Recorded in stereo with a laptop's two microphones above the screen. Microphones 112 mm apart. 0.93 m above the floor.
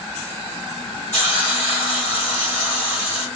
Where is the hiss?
20° left (ahead or behind), 1.7 m.